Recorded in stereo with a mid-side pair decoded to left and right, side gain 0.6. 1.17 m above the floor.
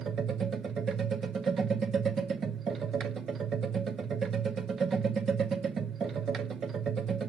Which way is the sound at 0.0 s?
40° right.